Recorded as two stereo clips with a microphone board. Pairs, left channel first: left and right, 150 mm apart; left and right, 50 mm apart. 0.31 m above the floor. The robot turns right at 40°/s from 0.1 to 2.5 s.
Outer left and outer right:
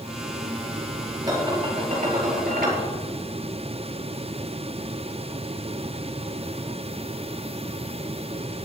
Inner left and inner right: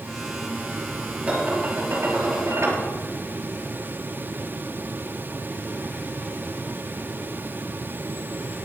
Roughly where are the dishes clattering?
Behind right.